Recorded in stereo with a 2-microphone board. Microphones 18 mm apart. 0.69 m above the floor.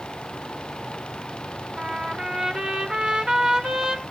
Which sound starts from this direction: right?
A trumpet, at 1.8 s.